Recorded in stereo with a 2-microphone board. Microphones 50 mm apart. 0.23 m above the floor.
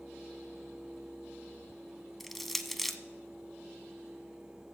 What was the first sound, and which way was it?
Crushing, centre (ahead or behind).